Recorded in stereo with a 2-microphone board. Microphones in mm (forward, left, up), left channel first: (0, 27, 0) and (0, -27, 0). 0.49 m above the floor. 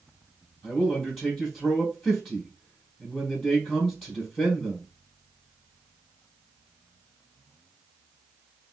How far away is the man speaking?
About 4 m.